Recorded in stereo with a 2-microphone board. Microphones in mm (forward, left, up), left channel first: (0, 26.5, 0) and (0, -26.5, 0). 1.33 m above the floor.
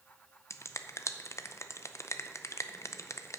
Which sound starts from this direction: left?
A finger snap, at 0.5 s.